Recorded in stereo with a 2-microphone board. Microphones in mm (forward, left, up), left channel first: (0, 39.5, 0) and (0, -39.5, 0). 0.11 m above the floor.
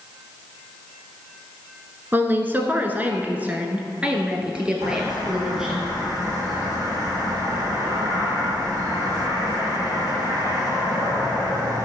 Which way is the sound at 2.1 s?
25° right (ahead or behind).